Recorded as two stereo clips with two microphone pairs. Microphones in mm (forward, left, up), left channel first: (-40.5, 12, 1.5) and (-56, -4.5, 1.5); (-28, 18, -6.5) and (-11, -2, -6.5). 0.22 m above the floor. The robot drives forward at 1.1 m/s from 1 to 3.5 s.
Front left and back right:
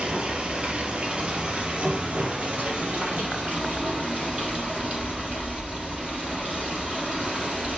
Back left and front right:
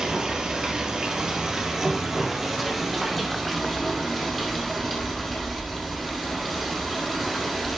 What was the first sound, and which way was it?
Running water, 110° right.